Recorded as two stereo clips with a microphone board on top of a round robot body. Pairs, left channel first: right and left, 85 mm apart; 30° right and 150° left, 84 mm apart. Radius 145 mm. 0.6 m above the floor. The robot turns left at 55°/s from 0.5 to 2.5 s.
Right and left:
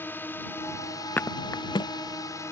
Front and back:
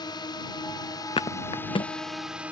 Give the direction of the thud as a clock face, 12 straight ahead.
1 o'clock.